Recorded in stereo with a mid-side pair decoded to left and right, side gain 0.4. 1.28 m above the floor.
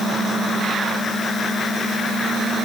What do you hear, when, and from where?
Only background noise.